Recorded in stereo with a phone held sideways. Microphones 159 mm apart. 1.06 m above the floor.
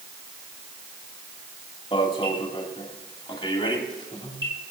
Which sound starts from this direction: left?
An alarm, at 1.9 s.